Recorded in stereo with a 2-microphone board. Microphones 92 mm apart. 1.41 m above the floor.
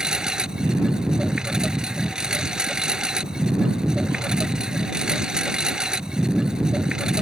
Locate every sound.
0.0 s a lawn mower: 10° right (ahead or behind)